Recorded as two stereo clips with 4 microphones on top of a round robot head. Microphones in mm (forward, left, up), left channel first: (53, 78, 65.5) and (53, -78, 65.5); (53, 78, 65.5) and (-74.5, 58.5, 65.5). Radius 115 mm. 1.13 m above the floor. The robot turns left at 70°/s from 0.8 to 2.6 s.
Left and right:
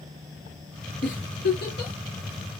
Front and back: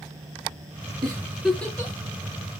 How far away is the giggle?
About 2.5 m.